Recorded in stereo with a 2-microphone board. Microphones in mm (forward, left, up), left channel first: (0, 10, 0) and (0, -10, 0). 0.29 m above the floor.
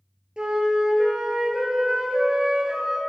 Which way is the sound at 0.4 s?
50° right (ahead or behind).